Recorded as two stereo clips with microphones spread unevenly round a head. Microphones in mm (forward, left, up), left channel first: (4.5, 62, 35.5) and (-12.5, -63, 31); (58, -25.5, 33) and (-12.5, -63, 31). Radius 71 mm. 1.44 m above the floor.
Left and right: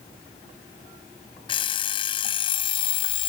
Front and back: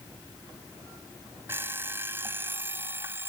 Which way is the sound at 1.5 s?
135° left.